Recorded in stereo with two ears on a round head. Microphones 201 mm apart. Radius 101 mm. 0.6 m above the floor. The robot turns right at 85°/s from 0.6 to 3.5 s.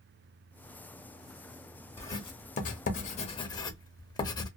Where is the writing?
10° left (ahead or behind), 0.7 m; by 4.5 s 20° left (ahead or behind), 0.7 m.